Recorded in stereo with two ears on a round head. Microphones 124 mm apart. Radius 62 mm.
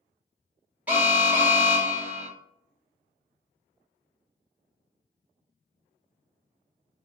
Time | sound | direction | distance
0.9 | an alarm | 10° right (ahead or behind) | 1.3 m